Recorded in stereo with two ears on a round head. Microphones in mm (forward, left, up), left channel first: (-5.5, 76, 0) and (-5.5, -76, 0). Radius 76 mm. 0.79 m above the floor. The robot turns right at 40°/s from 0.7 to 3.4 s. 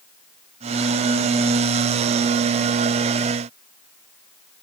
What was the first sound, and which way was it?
Only background noise.